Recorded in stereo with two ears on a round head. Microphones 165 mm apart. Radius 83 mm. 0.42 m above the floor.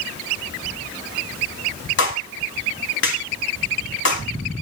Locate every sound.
2.0 s a clap: 70° left (ahead or behind), 3.5 m